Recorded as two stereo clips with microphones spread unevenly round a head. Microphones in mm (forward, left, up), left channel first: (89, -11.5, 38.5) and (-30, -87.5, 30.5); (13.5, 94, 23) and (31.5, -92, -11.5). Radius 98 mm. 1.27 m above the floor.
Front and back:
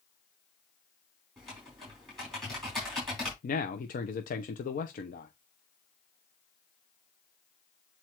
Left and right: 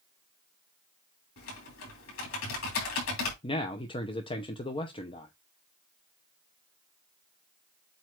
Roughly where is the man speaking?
Ahead left.